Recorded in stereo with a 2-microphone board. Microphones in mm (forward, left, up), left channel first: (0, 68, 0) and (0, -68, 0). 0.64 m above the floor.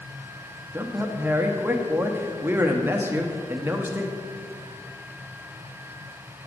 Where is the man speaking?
15° right (ahead or behind), 0.5 m.